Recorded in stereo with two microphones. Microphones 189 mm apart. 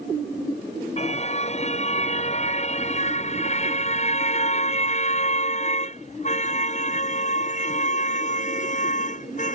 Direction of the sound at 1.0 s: 35° left (ahead or behind).